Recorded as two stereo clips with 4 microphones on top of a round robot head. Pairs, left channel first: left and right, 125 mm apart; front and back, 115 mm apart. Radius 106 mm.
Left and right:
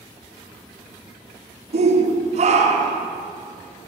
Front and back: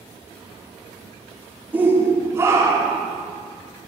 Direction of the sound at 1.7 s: 105° right.